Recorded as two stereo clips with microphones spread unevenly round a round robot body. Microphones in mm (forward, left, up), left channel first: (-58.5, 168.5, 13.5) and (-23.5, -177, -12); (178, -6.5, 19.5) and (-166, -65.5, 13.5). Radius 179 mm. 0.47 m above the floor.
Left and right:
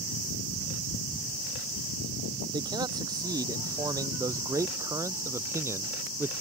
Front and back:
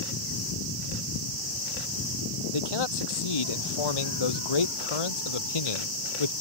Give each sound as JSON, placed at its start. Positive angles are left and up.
{"t": 2.5, "sound": "a man speaking", "azimuth_deg": -5}